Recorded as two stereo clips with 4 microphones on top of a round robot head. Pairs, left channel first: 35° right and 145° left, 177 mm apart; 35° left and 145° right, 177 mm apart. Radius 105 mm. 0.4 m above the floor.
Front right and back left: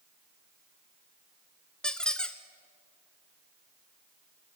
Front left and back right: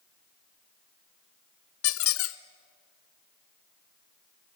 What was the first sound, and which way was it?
A squeak, 50° left.